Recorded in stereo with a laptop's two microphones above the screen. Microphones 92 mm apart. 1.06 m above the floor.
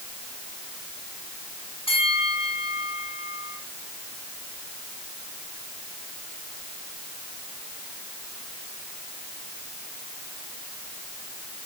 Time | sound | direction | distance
1.9 | a bell | 70° left (ahead or behind) | 7 m